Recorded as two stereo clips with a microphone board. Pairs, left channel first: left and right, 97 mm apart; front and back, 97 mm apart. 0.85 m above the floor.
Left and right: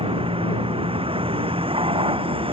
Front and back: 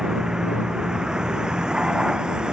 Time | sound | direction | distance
0.0 | a vehicle | 95° right | ?